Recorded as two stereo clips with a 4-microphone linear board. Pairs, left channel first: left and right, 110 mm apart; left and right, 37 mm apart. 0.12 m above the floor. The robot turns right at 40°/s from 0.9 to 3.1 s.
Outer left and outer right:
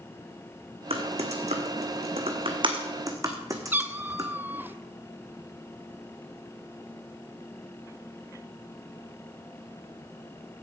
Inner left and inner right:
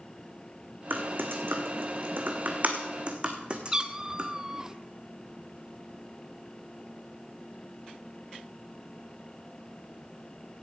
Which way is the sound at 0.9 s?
60° right (ahead or behind).